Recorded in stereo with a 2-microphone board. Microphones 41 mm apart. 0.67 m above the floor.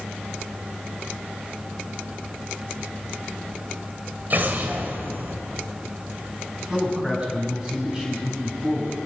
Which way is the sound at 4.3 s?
50° right (ahead or behind).